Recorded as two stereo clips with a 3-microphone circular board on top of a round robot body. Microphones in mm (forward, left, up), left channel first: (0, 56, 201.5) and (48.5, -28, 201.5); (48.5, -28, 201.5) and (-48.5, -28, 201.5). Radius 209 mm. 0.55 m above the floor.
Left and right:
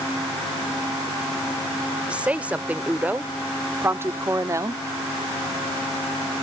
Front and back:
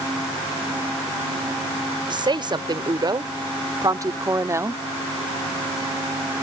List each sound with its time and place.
2.1 s a woman speaking: 140° right; by 4.8 s 115° right